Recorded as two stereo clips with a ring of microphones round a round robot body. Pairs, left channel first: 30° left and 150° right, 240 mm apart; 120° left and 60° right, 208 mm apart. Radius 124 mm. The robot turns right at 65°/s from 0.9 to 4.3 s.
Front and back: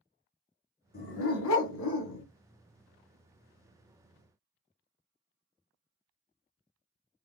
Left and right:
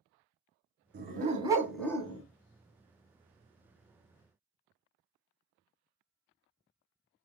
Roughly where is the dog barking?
Ahead right.